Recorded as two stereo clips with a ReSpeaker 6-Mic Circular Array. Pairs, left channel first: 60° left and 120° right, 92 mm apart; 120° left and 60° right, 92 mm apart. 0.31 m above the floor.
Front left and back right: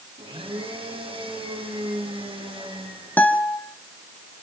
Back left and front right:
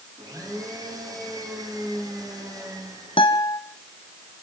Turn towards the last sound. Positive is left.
turn(degrees=130)